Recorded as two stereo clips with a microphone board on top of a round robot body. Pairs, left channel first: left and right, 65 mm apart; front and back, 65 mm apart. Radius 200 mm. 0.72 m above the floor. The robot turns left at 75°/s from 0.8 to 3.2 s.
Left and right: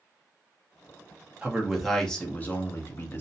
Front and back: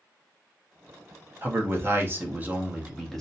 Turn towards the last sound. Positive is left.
turn(degrees=80)